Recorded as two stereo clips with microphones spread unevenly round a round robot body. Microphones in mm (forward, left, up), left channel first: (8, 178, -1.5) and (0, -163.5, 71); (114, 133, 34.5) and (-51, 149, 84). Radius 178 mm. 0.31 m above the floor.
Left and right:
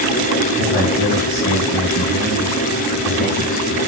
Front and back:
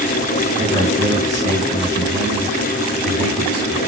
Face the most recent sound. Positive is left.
turn(degrees=145)